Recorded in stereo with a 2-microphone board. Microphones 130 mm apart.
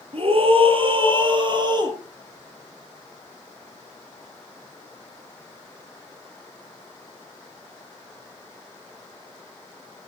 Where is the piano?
I don't hear a piano.